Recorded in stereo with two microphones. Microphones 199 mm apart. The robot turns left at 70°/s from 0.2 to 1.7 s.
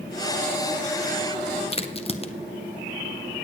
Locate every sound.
1.7 s a crack: 30° left (ahead or behind), 0.6 m